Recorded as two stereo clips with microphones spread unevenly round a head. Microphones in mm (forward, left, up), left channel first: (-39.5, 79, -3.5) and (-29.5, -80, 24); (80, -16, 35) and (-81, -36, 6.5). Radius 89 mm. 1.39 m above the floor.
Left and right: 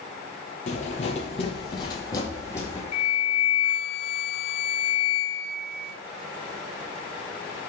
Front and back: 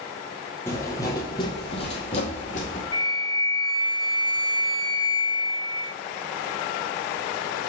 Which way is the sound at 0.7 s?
60° left.